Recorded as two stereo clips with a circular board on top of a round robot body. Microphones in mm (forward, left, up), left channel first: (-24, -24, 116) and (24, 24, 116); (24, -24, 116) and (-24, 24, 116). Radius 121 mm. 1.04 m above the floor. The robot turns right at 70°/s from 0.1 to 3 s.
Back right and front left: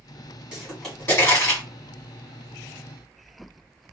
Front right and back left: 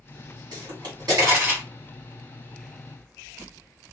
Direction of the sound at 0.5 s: 120° left.